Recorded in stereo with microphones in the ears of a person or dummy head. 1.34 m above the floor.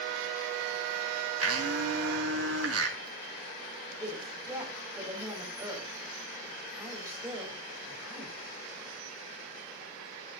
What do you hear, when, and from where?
1.4 s a blender: 80° right, 3.5 m
4.0 s a woman speaking: 10° right (ahead or behind), 6 m